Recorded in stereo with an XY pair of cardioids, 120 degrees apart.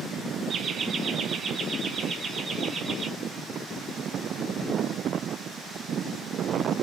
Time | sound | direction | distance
0.5 | laughter | 45° right | 1.0 m